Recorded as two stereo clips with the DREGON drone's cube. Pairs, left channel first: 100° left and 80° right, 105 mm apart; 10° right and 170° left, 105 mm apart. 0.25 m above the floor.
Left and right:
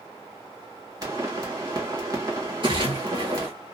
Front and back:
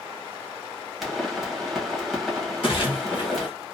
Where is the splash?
45° right, 1.3 m.